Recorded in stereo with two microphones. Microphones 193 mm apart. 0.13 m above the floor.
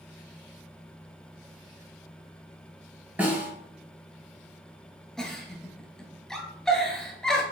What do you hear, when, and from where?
3.2 s a snare drum: 5° right (ahead or behind), 1.9 m
5.2 s a giggle: centre (ahead or behind), 1.0 m